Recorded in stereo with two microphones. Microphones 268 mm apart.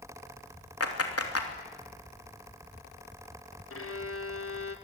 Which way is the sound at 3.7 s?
60° left (ahead or behind).